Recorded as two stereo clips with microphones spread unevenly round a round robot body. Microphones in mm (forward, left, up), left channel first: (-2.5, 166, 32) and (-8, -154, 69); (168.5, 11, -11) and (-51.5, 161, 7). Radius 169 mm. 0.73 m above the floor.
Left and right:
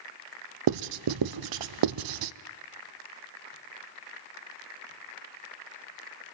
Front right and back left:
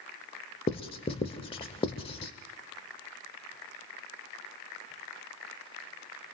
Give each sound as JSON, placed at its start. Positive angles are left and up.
{"t": 0.7, "sound": "writing", "azimuth_deg": -110, "distance_m": 0.6}